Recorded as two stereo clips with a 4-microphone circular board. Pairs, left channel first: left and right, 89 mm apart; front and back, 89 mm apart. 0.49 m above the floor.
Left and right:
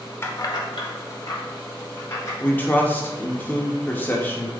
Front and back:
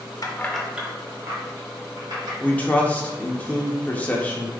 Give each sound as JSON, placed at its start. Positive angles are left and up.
{"t": 0.2, "sound": "keys jangling", "azimuth_deg": 35, "distance_m": 0.7}
{"t": 2.4, "sound": "a man speaking", "azimuth_deg": 50, "distance_m": 0.9}